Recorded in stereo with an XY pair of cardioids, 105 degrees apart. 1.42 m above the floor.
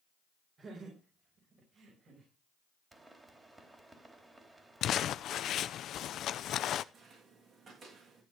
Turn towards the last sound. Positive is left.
turn(degrees=-55)